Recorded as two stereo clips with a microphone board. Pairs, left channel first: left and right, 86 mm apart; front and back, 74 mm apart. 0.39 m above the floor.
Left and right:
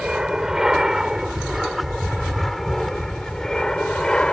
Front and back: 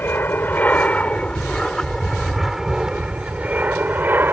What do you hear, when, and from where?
0.0 s an aircraft: 15° right; by 4.3 s 160° left